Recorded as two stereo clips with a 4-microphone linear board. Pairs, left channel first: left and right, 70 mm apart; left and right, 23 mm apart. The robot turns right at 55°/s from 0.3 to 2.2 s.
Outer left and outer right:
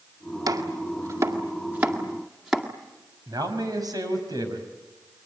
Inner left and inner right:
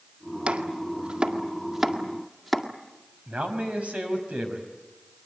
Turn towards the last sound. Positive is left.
turn(degrees=-65)  # may be behind; listen again after turning